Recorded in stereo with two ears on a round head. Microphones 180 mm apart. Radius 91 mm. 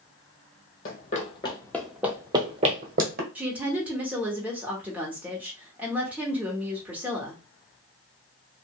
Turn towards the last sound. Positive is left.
turn(degrees=-10)  # may be behind; listen again after turning